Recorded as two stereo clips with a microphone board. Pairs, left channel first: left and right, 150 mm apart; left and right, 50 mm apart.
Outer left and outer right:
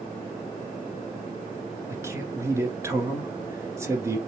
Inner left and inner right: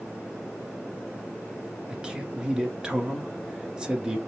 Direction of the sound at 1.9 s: 20° right (ahead or behind).